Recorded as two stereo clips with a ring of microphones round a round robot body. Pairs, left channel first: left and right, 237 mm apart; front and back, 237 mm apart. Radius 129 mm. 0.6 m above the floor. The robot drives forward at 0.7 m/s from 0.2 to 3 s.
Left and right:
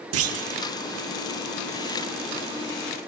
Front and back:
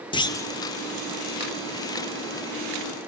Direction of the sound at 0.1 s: 70° right.